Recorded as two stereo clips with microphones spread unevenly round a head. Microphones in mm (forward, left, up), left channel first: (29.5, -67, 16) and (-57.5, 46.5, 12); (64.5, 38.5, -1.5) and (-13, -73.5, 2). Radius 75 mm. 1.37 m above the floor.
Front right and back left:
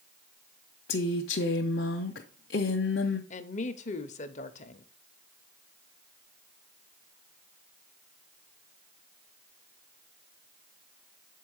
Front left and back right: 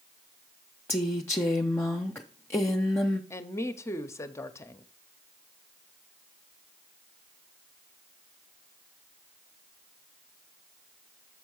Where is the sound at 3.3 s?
15° right, 0.7 m.